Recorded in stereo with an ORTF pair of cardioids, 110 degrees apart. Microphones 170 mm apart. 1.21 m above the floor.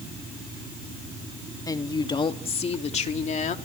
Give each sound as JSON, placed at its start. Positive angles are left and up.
{"t": 1.7, "sound": "a woman speaking", "azimuth_deg": 20, "distance_m": 2.0}